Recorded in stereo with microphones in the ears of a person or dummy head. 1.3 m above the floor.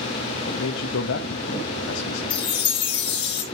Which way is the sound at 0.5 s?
75° left (ahead or behind).